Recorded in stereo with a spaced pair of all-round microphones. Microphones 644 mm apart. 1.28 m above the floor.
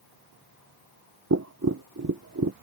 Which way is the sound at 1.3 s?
25° right (ahead or behind).